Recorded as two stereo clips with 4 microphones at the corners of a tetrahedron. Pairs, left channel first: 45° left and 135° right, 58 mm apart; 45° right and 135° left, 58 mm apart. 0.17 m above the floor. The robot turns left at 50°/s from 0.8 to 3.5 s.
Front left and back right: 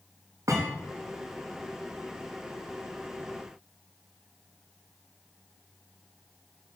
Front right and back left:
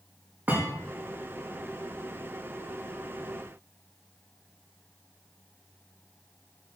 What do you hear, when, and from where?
0.5 s a thud: 170° right, 5.5 m